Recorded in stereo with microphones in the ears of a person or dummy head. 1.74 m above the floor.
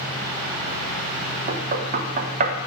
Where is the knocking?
35° right (ahead or behind), 1.3 m.